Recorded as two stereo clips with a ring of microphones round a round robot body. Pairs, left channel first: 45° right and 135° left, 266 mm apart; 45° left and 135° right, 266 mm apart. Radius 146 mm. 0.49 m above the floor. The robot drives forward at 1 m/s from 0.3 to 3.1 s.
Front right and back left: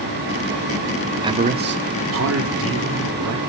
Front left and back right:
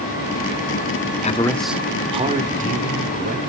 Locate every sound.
1.2 s a man speaking: 75° left, 0.7 m; by 3.4 s 170° left, 1.9 m